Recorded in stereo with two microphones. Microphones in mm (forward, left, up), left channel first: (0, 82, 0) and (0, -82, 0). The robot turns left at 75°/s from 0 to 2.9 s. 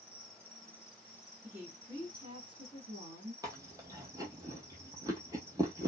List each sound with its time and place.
0.0 s an insect: 135° right, 1.0 m; by 5.9 s 10° left, 1.0 m
1.4 s a woman speaking: 10° right (ahead or behind), 1.8 m; by 3.3 s 20° right (ahead or behind), 1.8 m
3.4 s chewing: 20° right (ahead or behind), 0.9 m